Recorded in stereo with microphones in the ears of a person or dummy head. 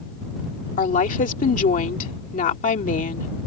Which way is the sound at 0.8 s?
55° left (ahead or behind).